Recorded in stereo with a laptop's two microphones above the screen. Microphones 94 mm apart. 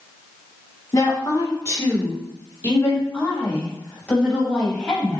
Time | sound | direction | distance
0.9 | a woman speaking | 40° left (ahead or behind) | 2.5 m